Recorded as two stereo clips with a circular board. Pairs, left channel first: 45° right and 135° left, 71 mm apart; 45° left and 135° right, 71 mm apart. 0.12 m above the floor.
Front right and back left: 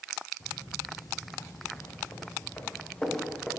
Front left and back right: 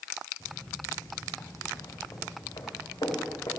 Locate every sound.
0.4 s footsteps: 25° right, 3.5 m; by 3.5 s 40° left, 3.5 m